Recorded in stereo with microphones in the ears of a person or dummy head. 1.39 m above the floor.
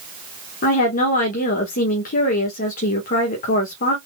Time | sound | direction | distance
0.6 | a woman speaking | 45° left (ahead or behind) | 1.3 m